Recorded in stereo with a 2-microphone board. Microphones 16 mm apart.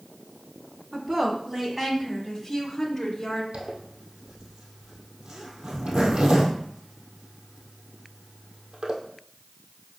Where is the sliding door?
I don't hear a sliding door.